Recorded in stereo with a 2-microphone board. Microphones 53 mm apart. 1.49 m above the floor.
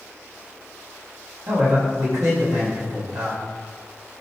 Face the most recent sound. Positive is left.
turn(degrees=-85)